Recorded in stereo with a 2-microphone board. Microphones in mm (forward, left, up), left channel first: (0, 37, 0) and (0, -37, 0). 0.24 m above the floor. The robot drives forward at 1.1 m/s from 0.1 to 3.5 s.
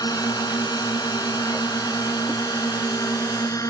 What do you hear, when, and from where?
0.0 s a drone: 60° left (ahead or behind); by 3.7 s 50° left (ahead or behind)